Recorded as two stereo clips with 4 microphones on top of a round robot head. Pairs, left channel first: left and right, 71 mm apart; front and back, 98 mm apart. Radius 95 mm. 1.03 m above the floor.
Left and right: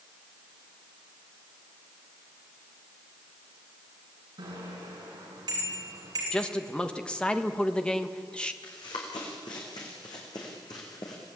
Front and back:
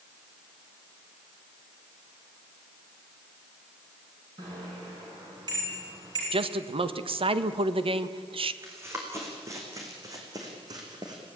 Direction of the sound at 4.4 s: 120° right.